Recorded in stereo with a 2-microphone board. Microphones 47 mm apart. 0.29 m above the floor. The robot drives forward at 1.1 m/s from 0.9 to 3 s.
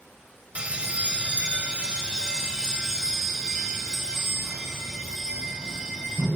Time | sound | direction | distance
0.6 | a bell | 25° right (ahead or behind) | 1.6 m